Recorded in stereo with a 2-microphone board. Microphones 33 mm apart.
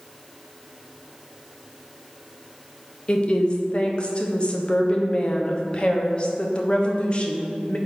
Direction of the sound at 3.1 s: 35° left (ahead or behind).